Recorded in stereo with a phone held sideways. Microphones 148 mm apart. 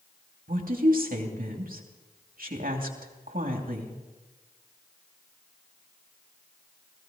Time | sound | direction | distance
0.5 | a woman speaking | 75° right (ahead or behind) | 2.5 m